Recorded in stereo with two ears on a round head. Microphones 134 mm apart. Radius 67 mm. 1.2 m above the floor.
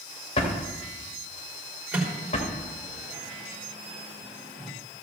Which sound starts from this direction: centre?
A microwave, at 1.9 s.